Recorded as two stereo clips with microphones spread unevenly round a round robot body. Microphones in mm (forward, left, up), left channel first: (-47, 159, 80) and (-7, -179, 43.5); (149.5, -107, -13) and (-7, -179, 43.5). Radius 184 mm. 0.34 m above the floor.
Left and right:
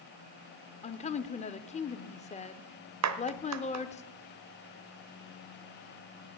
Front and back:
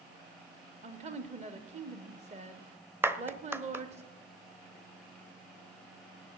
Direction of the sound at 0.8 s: 155° left.